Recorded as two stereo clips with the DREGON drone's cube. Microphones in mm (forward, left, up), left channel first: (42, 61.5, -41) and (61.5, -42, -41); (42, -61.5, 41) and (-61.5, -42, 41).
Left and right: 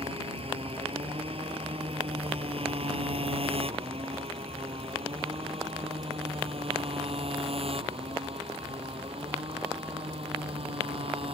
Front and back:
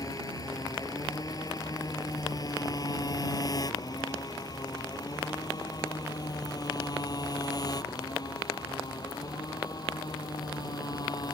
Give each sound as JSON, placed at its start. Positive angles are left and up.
{"t": 0.0, "sound": "a motorcycle", "azimuth_deg": -65}